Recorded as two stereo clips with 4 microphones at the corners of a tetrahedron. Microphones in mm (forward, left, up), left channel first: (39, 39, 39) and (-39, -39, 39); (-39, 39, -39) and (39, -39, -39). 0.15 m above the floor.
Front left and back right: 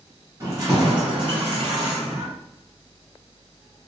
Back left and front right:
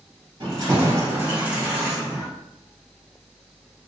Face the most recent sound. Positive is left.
turn(degrees=-150)